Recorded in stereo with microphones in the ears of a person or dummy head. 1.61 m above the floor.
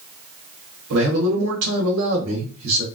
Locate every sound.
0.9 s a man speaking: 85° right, 1.8 m